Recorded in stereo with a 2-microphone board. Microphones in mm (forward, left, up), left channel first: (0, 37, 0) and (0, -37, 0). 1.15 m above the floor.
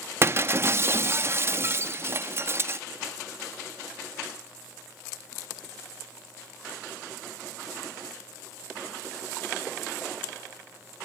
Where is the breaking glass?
35° right (ahead or behind), 0.7 m.